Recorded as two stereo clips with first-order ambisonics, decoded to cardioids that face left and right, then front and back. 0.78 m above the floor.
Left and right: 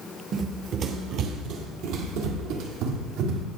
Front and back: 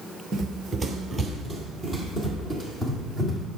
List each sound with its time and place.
0.3 s running footsteps: 125° right, 0.9 m; by 3.5 s 75° right, 2 m